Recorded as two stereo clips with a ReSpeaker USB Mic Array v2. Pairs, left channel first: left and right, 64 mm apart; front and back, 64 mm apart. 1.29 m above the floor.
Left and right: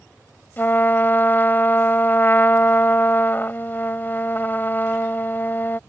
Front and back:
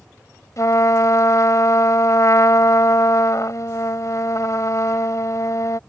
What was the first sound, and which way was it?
A trumpet, 30° left.